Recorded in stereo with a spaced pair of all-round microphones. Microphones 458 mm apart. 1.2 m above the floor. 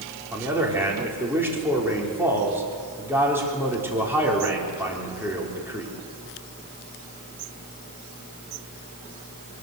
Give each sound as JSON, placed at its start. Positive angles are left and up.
{"t": 0.3, "sound": "a man speaking", "side_deg": -5, "distance_m": 4.0}